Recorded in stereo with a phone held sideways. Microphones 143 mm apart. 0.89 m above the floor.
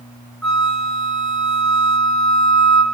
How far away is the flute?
About 0.9 m.